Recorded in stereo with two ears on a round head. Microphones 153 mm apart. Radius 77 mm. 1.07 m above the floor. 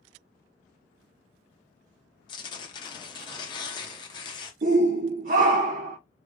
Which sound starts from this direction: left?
Tearing paper, at 2.3 s.